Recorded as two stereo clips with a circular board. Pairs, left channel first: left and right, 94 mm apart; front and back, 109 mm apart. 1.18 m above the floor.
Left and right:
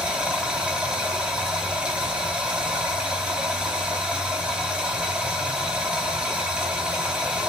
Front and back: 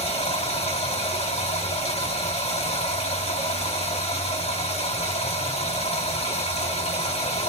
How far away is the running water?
About 3.5 m.